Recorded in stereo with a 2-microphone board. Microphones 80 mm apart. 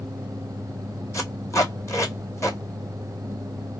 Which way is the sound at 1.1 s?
40° left (ahead or behind).